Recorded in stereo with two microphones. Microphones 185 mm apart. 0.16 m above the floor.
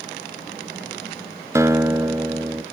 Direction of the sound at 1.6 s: 15° right (ahead or behind).